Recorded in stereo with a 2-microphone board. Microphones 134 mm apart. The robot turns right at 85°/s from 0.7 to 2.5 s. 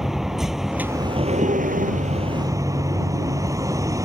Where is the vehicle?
175° right; by 4.0 s 25° right.